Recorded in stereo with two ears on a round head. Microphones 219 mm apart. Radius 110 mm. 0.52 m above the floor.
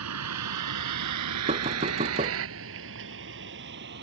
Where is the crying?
I don't hear crying.